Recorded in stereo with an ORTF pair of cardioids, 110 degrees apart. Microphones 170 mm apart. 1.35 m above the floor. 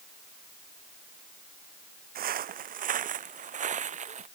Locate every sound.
2.1 s footsteps: 60° right; by 4.3 s 45° right